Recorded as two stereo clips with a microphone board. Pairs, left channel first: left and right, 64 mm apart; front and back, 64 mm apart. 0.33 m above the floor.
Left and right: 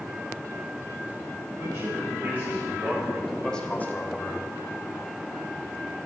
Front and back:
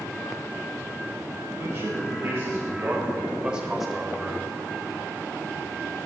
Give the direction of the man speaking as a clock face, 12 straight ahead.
4 o'clock.